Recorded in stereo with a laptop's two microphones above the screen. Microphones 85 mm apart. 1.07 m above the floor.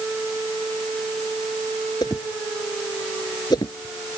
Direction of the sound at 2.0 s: 55° left (ahead or behind).